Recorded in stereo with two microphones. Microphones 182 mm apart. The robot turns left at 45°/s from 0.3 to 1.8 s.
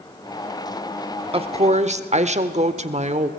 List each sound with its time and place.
1.3 s a woman speaking: 30° right (ahead or behind), 1.1 m; by 3.3 s 40° right (ahead or behind), 1.1 m